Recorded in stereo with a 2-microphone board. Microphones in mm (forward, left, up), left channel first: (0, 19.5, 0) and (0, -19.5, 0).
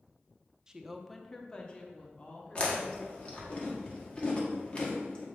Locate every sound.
0.7 s a woman speaking: 15° right (ahead or behind), 0.5 m; by 3.5 s 40° left (ahead or behind), 1.9 m
2.5 s chewing: 30° left (ahead or behind), 1.4 m